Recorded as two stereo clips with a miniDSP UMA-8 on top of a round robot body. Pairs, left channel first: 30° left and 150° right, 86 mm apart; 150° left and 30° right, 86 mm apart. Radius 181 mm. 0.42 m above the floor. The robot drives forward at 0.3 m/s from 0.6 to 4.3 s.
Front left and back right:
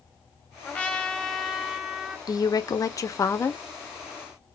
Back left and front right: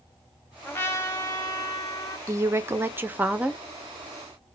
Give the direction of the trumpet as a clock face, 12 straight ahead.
9 o'clock.